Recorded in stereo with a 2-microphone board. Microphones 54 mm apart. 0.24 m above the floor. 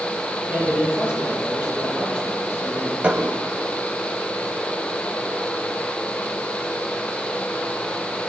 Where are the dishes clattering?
25° right (ahead or behind), 0.9 m.